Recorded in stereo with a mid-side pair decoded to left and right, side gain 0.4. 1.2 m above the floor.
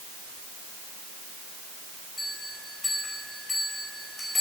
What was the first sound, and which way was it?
A bell, 15° left.